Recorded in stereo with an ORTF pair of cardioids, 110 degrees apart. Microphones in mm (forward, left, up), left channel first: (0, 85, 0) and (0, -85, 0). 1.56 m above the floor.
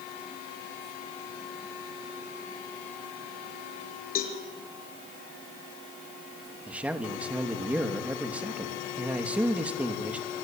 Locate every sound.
4.2 s a cowbell: 65° left, 5.5 m
6.7 s a man speaking: 10° right, 3 m